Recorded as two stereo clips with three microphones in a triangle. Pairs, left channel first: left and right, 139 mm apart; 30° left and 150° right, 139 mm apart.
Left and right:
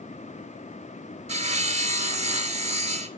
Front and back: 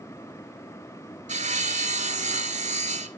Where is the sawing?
125° right, 0.7 m.